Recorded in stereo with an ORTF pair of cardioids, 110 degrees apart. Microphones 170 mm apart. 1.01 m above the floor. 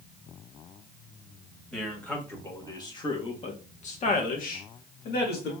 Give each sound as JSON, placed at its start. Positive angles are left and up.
{"t": 1.7, "sound": "a man speaking", "azimuth_deg": 5, "distance_m": 1.8}